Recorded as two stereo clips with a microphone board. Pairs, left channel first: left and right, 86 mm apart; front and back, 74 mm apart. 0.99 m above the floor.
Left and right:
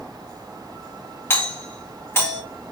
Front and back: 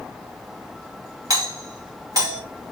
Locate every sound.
1.3 s a doorbell: 150° left, 2.5 m